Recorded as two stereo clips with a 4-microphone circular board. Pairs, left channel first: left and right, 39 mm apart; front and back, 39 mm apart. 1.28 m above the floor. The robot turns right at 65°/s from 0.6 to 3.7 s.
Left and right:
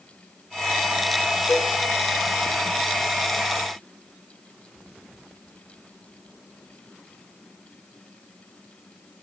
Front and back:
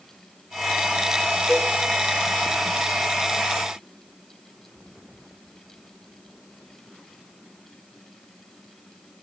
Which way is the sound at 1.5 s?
75° left.